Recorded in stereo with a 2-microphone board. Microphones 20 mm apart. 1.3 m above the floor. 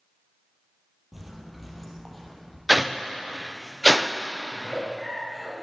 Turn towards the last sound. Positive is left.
turn(degrees=-20)  # may be behind; listen again after turning